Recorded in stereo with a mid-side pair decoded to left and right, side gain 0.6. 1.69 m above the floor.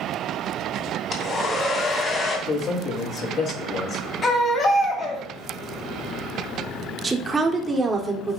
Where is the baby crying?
40° left, 2.5 m.